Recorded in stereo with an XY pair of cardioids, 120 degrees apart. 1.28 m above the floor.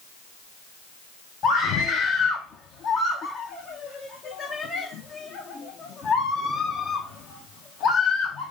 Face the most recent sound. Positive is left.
turn(degrees=60)